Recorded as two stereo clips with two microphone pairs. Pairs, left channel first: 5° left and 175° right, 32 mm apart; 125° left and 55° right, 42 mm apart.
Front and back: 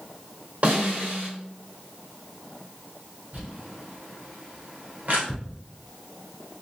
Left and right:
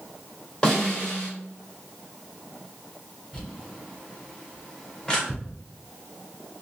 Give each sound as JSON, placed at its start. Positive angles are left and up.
{"t": 0.6, "sound": "a snare drum", "azimuth_deg": -170, "distance_m": 1.8}
{"t": 3.3, "sound": "crumpling", "azimuth_deg": -160, "distance_m": 1.9}
{"t": 5.3, "sound": "ticking", "azimuth_deg": -95, "distance_m": 1.3}